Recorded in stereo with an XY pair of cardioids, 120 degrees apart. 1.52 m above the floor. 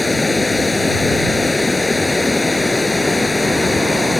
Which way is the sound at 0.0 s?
15° left.